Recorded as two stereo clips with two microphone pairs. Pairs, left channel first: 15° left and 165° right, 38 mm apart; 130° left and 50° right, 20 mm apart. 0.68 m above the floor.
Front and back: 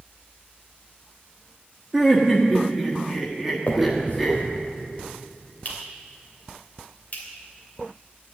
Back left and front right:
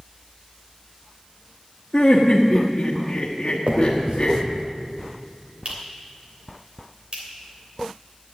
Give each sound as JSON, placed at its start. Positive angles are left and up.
{"t": 1.9, "sound": "laughter", "azimuth_deg": 110, "distance_m": 1.3}
{"t": 3.7, "sound": "a finger snap", "azimuth_deg": -25, "distance_m": 3.0}